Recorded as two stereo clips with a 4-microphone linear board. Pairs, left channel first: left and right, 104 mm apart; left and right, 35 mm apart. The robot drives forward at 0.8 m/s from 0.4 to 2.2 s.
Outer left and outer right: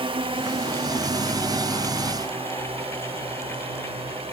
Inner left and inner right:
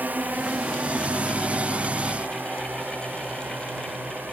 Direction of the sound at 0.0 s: 70° right (ahead or behind).